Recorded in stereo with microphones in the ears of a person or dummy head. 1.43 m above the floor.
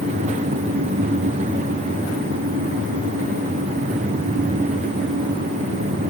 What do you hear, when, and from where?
Only background noise.